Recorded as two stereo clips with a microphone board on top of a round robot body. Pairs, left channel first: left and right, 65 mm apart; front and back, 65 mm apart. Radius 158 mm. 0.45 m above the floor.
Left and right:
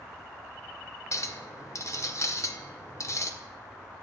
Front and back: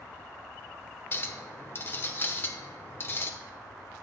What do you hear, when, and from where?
1.1 s a clink: 50° left, 1.2 m